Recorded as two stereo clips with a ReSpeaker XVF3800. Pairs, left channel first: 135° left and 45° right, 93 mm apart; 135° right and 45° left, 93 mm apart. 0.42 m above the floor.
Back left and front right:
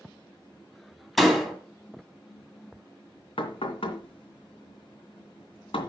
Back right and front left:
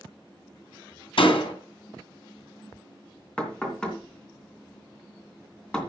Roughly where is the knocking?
Behind left.